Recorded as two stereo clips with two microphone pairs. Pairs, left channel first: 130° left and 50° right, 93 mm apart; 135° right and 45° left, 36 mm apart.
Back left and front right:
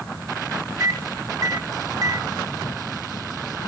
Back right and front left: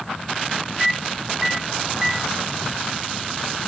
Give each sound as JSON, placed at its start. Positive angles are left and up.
{"t": 0.8, "sound": "a microwave", "azimuth_deg": -25, "distance_m": 1.0}